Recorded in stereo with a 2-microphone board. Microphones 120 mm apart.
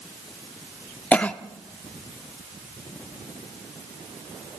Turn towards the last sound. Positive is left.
turn(degrees=10)  # may be behind; listen again after turning